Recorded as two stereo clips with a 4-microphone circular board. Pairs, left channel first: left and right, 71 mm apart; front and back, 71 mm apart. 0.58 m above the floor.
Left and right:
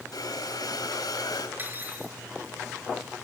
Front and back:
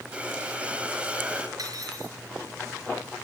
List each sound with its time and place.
0.1 s breathing: 105° left, 4 m
1.6 s cutlery clinking: 150° right, 5 m